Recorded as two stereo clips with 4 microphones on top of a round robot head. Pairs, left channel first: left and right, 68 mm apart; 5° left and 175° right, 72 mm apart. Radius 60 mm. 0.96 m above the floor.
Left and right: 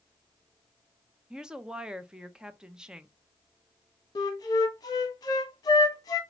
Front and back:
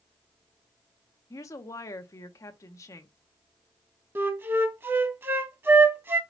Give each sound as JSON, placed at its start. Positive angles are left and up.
{"t": 1.3, "sound": "a woman speaking", "azimuth_deg": -15, "distance_m": 0.7}
{"t": 4.2, "sound": "a flute", "azimuth_deg": 125, "distance_m": 0.9}